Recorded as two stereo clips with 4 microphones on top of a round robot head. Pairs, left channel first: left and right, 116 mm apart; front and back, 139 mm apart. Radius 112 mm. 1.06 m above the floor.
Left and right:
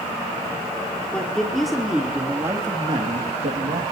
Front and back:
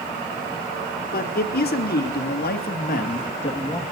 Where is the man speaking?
5° left, 3.5 m; by 3.8 s 70° right, 1.6 m.